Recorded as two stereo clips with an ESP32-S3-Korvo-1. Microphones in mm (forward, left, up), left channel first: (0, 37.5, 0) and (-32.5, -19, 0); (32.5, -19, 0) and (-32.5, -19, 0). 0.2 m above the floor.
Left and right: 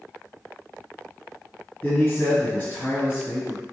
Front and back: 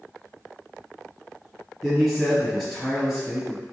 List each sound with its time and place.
1.8 s a man speaking: 75° left, 1.1 m